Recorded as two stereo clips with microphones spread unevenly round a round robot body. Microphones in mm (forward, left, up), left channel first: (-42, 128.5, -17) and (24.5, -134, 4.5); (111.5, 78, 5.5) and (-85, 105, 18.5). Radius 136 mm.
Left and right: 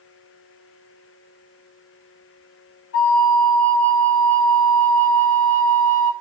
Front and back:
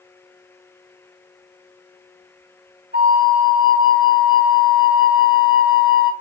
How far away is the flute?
About 1.5 m.